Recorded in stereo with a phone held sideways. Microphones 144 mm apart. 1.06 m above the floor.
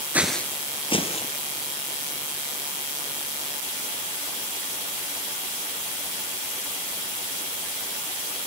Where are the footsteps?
10° right (ahead or behind), 1.1 m; by 1.3 s 50° left (ahead or behind), 2 m.